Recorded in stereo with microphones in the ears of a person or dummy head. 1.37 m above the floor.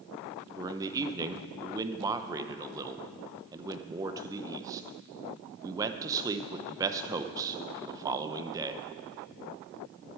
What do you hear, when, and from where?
0.6 s a man speaking: 25° right (ahead or behind), 0.7 m